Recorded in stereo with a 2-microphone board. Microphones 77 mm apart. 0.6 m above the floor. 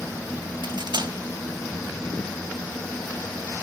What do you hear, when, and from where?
0.6 s cutlery clinking: 75° right (ahead or behind), 2 m